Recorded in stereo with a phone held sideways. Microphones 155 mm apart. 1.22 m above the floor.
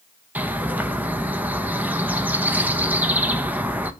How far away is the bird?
About 0.6 m.